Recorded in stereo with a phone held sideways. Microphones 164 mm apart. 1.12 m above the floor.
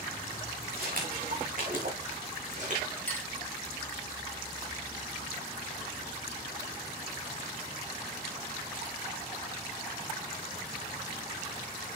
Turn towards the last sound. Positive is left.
turn(degrees=10)  # may be behind; listen again after turning